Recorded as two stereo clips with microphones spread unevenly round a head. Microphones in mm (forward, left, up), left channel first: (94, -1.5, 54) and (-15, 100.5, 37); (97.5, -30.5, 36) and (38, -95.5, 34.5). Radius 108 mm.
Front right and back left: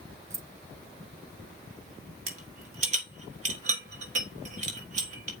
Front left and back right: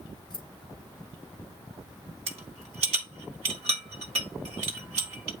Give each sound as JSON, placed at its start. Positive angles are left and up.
{"t": 0.3, "sound": "keys jangling", "azimuth_deg": 65, "distance_m": 0.8}
{"t": 2.3, "sound": "a rattle", "azimuth_deg": -170, "distance_m": 1.3}